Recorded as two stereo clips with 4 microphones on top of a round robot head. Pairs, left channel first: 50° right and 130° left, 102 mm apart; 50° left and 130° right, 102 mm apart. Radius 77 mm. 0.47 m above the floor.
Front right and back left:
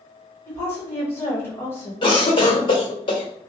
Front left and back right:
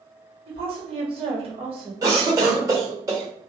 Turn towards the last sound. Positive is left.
turn(degrees=-80)